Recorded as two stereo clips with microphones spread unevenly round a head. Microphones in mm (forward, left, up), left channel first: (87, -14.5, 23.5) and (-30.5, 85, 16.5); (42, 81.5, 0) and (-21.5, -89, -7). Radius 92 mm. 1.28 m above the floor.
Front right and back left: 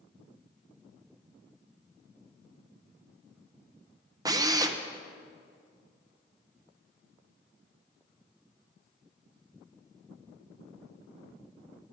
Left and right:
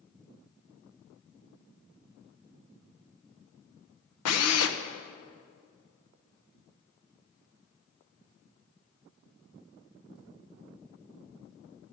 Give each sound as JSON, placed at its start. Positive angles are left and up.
{"t": 4.2, "sound": "a drill", "azimuth_deg": 70, "distance_m": 0.8}